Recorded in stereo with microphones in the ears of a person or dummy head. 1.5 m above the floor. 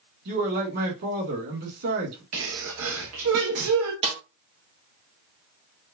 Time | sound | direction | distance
0.2 | a man speaking | 55° right (ahead or behind) | 2 m
2.3 | a sneeze | 80° right | 1.0 m
4.0 | a snare drum | 30° right (ahead or behind) | 0.8 m